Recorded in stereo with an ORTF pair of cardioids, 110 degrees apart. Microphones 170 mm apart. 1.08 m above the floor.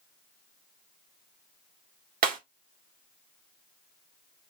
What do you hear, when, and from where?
2.2 s breaking glass: 55° right, 1.7 m